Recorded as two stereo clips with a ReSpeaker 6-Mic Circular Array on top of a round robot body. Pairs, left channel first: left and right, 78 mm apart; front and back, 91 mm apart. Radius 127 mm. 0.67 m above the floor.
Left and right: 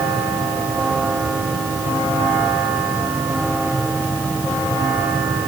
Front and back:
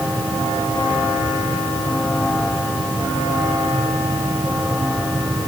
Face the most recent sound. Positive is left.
No sound to turn to.